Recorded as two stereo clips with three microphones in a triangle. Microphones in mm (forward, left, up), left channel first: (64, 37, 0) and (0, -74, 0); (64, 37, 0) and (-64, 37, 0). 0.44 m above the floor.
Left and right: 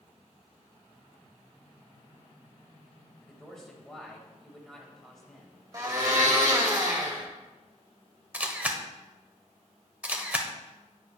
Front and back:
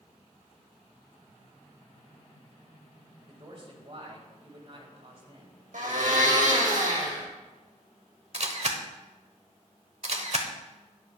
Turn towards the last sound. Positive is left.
turn(degrees=165)